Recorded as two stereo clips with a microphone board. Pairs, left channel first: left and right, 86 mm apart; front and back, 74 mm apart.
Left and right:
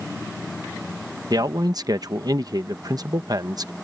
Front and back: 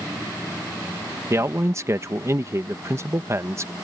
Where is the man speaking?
130° right.